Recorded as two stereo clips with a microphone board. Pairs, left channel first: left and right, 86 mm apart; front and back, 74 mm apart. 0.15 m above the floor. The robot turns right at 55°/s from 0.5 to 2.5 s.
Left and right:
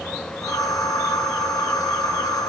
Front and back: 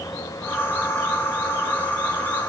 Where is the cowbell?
No cowbell in this recording.